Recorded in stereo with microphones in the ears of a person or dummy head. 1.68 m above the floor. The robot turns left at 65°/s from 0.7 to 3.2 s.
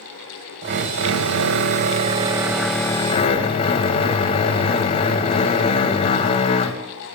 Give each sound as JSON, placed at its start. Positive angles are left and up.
{"t": 0.6, "sound": "a drill", "azimuth_deg": -50, "distance_m": 1.4}